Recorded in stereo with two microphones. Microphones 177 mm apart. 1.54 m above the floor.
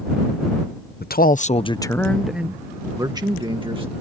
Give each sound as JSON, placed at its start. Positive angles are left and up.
{"t": 1.0, "sound": "a man speaking", "side_deg": 70}